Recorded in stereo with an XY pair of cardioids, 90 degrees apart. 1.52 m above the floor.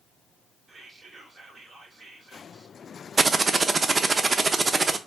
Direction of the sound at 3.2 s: 40° right.